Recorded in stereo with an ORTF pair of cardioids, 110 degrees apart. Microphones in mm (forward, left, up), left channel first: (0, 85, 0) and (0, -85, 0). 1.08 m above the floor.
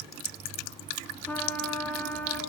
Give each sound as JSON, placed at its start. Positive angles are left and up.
{"t": 1.3, "sound": "a trumpet", "azimuth_deg": 10, "distance_m": 5.0}